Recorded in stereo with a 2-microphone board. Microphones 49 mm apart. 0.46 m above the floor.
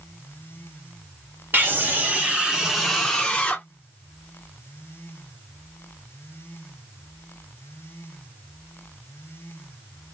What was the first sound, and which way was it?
A scream, 45° right (ahead or behind).